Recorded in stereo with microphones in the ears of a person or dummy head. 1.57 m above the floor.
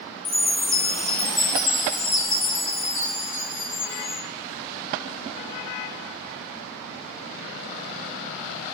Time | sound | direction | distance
0.2 | a chime | 30° left (ahead or behind) | 0.5 m